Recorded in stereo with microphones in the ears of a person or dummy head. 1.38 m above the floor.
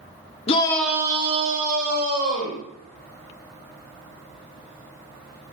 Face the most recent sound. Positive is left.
turn(degrees=-55)  # may be behind; listen again after turning